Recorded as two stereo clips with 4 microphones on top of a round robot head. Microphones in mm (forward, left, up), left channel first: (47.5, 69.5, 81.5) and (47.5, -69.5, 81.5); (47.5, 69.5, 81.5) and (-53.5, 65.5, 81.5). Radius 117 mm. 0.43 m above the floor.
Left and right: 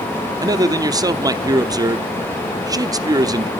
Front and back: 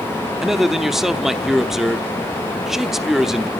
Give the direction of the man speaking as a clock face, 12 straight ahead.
3 o'clock.